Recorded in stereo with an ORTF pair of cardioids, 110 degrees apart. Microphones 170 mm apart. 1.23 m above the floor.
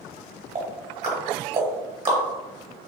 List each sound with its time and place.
0.6 s ticking: 40° right, 1.0 m